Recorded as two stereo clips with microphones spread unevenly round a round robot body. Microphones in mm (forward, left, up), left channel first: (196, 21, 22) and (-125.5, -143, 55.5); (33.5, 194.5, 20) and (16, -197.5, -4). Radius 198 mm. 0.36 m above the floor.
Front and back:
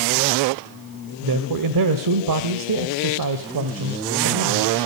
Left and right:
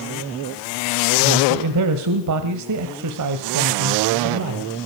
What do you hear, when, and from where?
1.2 s a man speaking: 130° right, 1.5 m